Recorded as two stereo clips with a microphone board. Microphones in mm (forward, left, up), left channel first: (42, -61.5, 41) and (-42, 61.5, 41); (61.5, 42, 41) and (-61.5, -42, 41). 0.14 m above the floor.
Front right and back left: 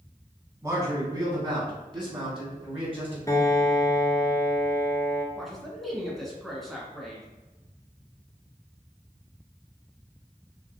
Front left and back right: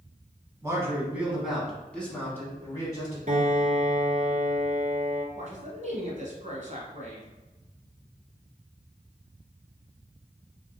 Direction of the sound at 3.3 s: 120° right.